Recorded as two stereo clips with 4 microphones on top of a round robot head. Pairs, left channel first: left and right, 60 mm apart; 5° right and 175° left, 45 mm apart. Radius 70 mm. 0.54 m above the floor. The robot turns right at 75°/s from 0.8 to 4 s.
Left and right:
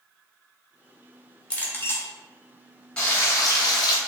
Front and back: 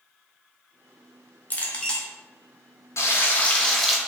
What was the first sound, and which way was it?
A clink, 30° left.